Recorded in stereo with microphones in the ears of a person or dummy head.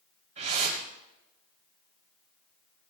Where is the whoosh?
40° right (ahead or behind), 3 m.